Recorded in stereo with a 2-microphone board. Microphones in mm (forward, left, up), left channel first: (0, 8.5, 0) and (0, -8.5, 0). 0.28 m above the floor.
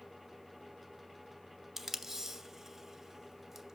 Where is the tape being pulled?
20° right (ahead or behind), 0.5 m.